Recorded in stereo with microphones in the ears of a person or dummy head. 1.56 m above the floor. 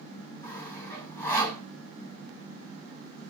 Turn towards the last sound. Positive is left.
turn(degrees=10)  # may be behind; listen again after turning